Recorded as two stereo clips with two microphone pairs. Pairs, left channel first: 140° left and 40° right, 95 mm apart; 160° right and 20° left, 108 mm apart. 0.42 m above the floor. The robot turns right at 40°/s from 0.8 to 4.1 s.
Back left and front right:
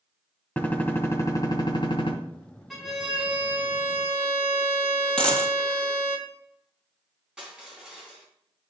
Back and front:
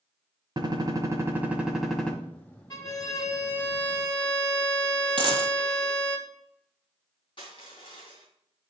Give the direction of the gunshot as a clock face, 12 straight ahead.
10 o'clock.